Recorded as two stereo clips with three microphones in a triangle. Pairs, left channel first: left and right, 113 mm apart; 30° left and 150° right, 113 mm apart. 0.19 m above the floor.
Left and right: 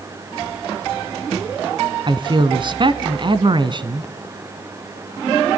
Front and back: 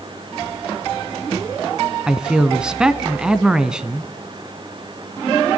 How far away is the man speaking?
About 1.8 m.